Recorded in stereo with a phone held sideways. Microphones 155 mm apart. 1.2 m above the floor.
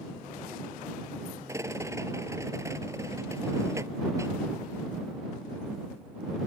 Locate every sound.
1.5 s a rattle: 20° right (ahead or behind)